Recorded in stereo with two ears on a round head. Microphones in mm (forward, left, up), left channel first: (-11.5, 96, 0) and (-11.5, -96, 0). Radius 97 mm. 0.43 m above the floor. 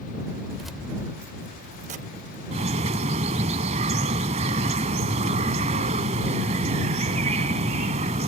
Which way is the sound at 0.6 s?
Centre (ahead or behind).